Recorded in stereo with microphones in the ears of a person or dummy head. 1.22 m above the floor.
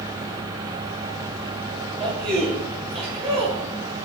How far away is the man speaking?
About 1.2 m.